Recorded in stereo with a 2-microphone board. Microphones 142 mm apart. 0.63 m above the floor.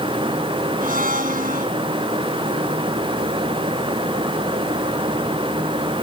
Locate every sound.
0.8 s a blender: 80° right